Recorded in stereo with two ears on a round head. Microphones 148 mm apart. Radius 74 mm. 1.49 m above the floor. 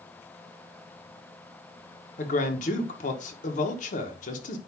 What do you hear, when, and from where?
2.2 s a man speaking: 50° left (ahead or behind), 1.6 m